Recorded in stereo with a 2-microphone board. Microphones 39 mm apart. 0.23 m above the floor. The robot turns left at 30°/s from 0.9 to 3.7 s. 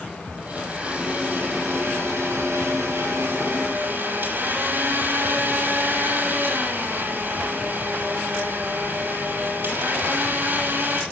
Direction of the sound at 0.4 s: 30° right.